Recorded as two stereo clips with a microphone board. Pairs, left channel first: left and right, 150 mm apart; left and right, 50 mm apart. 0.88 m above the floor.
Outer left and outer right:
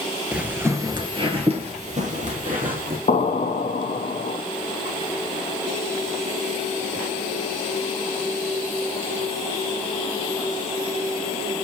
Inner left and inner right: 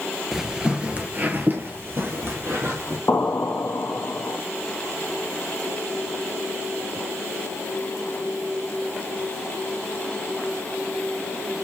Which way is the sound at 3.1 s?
55° left (ahead or behind).